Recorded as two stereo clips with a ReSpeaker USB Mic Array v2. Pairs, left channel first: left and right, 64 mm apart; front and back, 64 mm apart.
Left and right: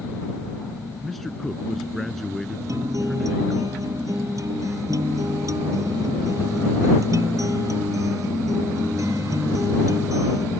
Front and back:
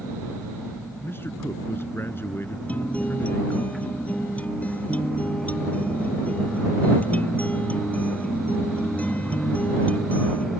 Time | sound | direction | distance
1.0 | a man speaking | 5° left | ?
2.7 | a guitar | 65° right | ?